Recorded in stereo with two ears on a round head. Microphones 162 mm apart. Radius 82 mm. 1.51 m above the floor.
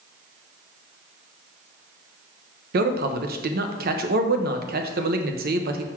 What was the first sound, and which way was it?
A man speaking, 55° right (ahead or behind).